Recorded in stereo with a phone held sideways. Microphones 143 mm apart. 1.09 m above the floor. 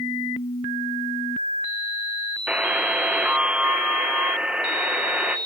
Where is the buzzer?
10° right (ahead or behind), 0.5 m.